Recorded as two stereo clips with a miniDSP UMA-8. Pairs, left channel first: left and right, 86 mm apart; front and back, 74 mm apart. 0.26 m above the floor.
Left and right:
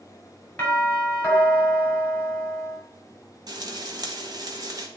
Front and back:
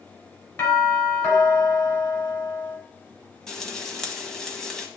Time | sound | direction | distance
0.6 | a doorbell | 30° left | 2.5 m
3.5 | frying | 80° right | 1.2 m